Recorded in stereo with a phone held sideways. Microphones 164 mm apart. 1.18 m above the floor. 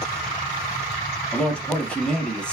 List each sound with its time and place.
1.3 s a man speaking: 5° left (ahead or behind), 1.0 m